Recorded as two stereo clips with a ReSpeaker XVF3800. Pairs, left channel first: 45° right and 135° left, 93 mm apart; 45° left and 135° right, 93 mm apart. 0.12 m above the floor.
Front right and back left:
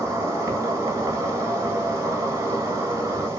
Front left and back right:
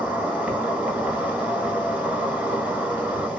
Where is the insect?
165° left, 1.0 m.